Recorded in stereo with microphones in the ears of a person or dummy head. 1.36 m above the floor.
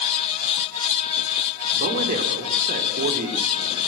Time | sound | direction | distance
1.7 | a man speaking | 45° right (ahead or behind) | 4 m